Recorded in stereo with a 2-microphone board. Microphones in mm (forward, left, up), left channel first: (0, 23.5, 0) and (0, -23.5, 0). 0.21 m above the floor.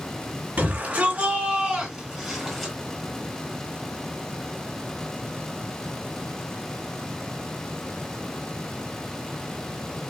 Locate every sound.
0.6 s a shout: 45° right (ahead or behind), 2.5 m; by 2.7 s 5° left (ahead or behind), 1.7 m